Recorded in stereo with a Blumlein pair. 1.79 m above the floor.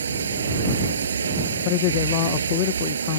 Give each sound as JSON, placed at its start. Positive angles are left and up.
{"t": 0.0, "sound": "running water", "azimuth_deg": -70}
{"t": 1.6, "sound": "a man speaking", "azimuth_deg": 45}